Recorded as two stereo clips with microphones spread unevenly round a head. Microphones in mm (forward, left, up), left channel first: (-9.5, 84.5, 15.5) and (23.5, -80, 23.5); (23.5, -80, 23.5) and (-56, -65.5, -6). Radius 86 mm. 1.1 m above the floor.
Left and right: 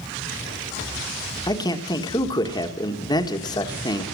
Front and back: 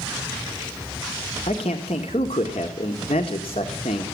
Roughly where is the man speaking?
Ahead left.